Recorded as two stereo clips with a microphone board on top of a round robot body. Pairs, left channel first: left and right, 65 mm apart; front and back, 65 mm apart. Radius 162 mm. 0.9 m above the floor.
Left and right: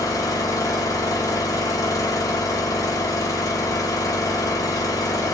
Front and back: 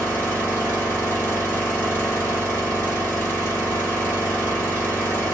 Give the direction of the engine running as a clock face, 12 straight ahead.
10 o'clock.